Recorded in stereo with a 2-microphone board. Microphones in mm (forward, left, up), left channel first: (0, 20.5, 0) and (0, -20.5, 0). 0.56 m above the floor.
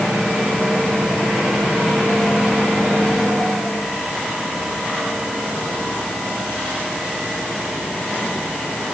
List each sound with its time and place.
Only background noise.